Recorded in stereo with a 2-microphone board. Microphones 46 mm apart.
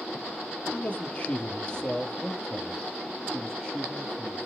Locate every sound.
0.7 s a man speaking: 35° left (ahead or behind), 1.9 m; by 4.5 s 5° right (ahead or behind), 3 m